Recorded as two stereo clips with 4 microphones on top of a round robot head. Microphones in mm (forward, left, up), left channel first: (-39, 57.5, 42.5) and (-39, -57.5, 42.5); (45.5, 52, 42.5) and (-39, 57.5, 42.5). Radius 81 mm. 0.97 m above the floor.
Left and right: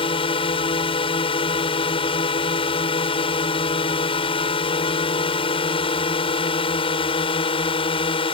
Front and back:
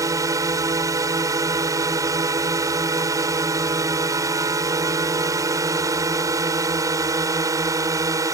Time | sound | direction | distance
0.0 | a drone | 130° left | ?